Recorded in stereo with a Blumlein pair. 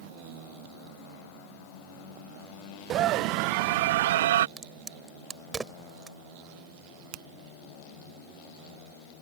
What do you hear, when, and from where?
2.9 s a scream: 30° right; by 4.5 s 60° right
4.6 s a crack: 15° right
7.1 s a finger snap: 35° right